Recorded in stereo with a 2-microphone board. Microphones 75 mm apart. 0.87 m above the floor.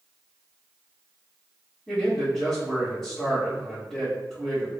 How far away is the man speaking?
About 1.4 m.